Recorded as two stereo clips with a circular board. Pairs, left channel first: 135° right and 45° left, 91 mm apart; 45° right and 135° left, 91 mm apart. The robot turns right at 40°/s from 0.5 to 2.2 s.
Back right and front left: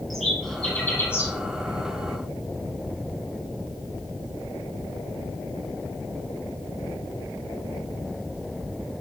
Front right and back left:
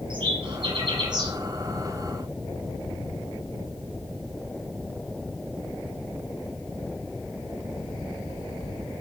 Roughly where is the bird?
Behind left.